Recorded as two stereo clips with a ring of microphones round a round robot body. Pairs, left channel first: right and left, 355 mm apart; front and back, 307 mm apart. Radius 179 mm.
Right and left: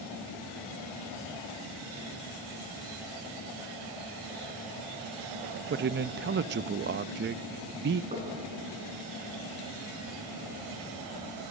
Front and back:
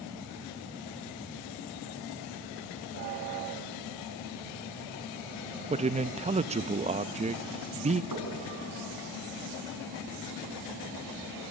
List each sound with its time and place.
5.7 s a man speaking: 125° left, 0.5 m
8.1 s knocking: 160° left, 5.5 m